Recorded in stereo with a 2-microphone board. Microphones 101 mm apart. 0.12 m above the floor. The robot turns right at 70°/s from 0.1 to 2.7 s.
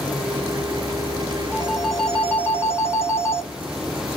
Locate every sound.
1.5 s a phone ringing: 25° right, 0.9 m; by 3.5 s 55° left, 0.9 m